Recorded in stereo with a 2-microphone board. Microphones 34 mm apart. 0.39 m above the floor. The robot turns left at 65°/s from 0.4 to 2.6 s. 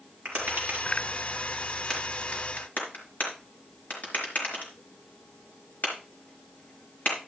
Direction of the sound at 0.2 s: 80° right.